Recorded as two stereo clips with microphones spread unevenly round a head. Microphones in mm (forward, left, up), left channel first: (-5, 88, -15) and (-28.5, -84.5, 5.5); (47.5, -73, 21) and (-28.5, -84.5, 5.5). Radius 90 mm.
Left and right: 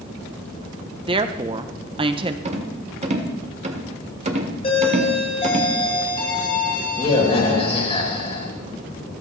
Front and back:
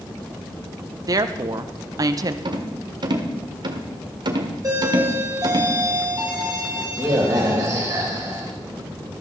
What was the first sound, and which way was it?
A woman speaking, 160° right.